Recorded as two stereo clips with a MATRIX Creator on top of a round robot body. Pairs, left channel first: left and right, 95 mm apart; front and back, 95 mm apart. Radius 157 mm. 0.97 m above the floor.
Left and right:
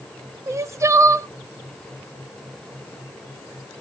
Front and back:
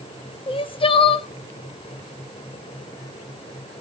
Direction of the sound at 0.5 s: 30° right.